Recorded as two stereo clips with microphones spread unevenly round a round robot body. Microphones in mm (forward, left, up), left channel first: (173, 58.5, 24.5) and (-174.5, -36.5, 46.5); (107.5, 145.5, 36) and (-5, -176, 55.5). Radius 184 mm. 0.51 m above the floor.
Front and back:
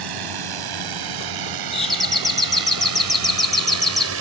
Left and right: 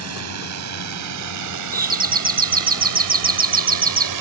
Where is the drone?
155° right; by 4.2 s 120° right.